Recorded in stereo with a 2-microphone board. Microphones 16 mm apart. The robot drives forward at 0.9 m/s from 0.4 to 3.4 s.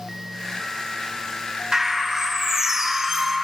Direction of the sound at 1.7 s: 40° right (ahead or behind).